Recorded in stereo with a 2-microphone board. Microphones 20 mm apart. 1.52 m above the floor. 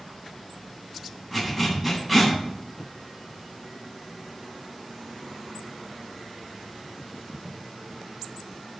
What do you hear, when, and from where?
1.3 s a zipper: 10° left (ahead or behind), 10 m